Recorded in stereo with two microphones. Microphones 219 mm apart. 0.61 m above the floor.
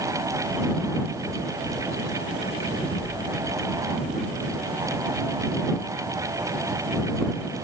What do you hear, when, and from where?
2.8 s an explosion: 85° left